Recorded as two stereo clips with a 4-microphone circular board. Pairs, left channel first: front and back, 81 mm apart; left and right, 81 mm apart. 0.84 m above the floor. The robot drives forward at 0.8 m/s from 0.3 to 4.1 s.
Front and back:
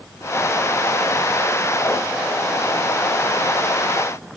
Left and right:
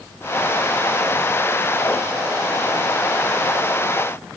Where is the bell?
No bell in this recording.